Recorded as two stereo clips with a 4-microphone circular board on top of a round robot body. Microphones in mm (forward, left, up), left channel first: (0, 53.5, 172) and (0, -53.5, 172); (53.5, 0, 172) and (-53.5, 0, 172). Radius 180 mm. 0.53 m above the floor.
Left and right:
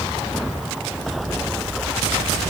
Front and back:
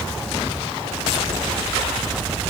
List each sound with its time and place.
Only background noise.